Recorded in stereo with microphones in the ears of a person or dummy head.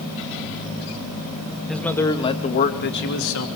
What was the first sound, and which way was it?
A man speaking, centre (ahead or behind).